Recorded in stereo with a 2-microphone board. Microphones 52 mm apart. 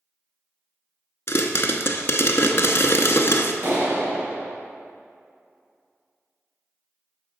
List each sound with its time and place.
1.3 s a pop: 60° left (ahead or behind), 0.6 m
3.6 s a clap: 50° right (ahead or behind), 1.8 m